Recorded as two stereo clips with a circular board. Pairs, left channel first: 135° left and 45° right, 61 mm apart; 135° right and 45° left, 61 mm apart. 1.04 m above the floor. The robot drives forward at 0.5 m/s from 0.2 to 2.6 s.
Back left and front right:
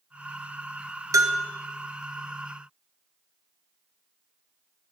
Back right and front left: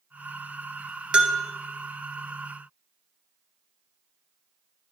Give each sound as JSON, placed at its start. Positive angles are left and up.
{"t": 1.1, "sound": "a bell", "azimuth_deg": -25, "distance_m": 0.6}